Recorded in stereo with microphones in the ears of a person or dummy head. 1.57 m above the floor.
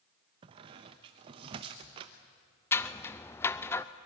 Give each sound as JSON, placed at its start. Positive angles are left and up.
{"t": 0.4, "sound": "a squeak", "side_deg": -25, "distance_m": 0.9}
{"t": 2.7, "sound": "scissors", "side_deg": 15, "distance_m": 0.6}